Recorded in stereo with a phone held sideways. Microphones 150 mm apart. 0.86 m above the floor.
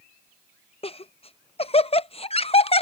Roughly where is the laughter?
Left.